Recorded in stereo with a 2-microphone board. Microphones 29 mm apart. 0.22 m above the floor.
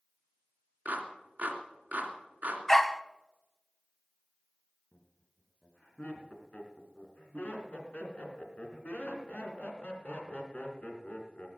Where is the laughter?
45° left (ahead or behind), 3 m.